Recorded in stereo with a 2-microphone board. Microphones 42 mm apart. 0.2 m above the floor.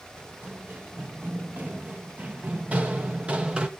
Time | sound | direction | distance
0.2 | running footsteps | 40° right (ahead or behind) | 4 m